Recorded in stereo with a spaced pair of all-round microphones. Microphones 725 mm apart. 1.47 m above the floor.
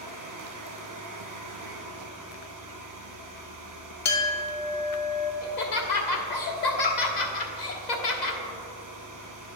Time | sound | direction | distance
0.0 | a fan | 25° right (ahead or behind) | 0.8 m
4.0 | a clink | 45° left (ahead or behind) | 0.9 m
5.4 | laughter | 75° left (ahead or behind) | 1.1 m